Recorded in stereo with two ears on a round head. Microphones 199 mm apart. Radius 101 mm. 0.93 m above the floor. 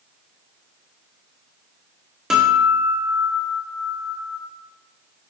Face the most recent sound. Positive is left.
turn(degrees=-5)  # may be behind; listen again after turning